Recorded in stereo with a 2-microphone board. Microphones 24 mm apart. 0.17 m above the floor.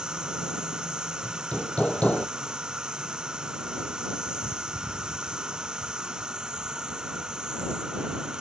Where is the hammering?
70° left (ahead or behind).